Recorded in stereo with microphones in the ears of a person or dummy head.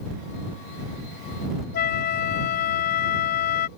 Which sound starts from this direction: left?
A flute, at 1.7 s.